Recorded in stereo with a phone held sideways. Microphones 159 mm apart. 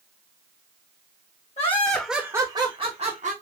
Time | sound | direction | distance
1.6 | laughter | 45° left (ahead or behind) | 0.8 m